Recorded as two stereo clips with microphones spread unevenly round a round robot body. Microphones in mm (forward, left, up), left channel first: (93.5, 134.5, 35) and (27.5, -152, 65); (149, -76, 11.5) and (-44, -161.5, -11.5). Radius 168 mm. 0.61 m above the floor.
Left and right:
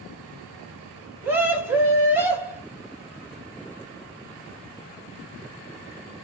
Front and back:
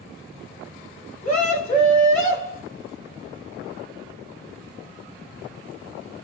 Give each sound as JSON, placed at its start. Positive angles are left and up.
{"t": 1.2, "sound": "a scream", "azimuth_deg": -20, "distance_m": 1.5}